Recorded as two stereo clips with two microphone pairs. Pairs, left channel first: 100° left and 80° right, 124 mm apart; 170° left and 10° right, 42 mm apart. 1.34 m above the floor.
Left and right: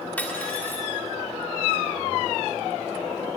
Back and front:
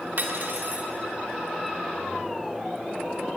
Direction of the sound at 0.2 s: 25° left.